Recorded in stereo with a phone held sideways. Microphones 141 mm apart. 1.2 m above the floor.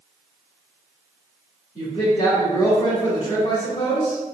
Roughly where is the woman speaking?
Left.